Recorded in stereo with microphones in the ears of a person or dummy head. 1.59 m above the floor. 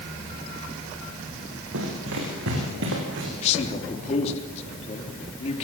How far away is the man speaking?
About 3.5 m.